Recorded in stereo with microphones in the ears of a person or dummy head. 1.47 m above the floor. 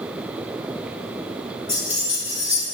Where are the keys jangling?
15° left (ahead or behind), 1.5 m.